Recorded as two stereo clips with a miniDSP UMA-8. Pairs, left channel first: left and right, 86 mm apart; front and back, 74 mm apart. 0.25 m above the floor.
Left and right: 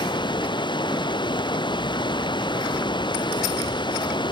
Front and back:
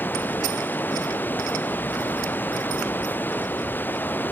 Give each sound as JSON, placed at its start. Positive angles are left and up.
{"t": 0.0, "sound": "running water", "azimuth_deg": 65}